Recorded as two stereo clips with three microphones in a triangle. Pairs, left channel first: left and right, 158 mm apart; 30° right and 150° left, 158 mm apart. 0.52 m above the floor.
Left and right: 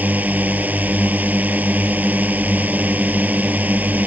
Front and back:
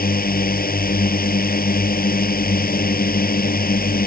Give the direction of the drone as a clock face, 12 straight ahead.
12 o'clock.